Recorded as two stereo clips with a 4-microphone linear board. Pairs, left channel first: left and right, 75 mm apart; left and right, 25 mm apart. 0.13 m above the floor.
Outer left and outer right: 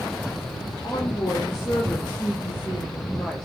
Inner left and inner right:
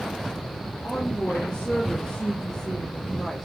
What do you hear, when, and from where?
0.8 s a woman speaking: 50° left (ahead or behind), 2 m; by 3.5 s 10° left (ahead or behind), 1.9 m